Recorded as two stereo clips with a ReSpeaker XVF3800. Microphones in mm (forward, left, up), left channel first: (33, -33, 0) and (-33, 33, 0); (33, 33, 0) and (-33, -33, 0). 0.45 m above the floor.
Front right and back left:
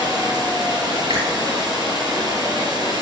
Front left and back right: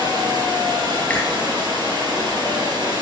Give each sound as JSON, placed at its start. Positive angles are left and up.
{"t": 0.0, "sound": "running water", "azimuth_deg": 180, "distance_m": 2.5}
{"t": 1.1, "sound": "a finger snap", "azimuth_deg": 120, "distance_m": 6.0}